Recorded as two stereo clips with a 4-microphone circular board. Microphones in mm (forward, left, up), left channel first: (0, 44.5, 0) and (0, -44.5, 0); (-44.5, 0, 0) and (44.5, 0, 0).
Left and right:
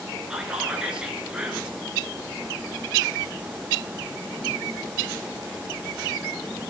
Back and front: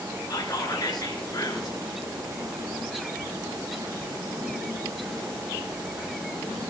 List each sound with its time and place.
0.3 s whispering: 165° right, 2.5 m